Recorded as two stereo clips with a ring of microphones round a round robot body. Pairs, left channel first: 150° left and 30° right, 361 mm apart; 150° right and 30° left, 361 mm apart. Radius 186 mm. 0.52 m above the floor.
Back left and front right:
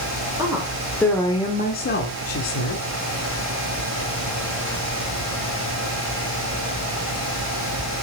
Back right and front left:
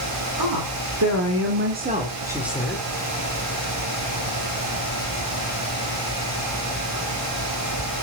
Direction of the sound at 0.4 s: 50° left.